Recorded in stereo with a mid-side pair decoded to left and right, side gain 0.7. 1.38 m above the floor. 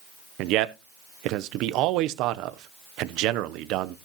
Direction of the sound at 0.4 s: 60° right.